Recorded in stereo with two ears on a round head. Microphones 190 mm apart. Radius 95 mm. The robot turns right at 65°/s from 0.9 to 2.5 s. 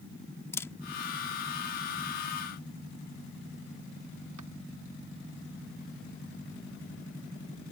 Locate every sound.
0.5 s a camera shutter: 15° left (ahead or behind); by 4.5 s 85° right